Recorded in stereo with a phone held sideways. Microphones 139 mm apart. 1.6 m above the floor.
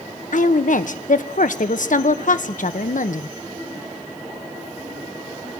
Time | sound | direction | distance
0.3 | a woman speaking | 70° left (ahead or behind) | 1.2 m